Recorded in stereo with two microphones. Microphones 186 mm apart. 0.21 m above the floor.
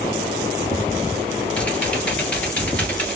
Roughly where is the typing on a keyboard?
Centre.